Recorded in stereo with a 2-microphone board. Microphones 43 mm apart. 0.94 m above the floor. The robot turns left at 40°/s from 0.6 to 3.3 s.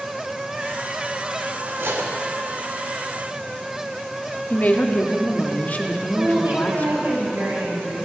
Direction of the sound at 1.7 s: 65° right (ahead or behind).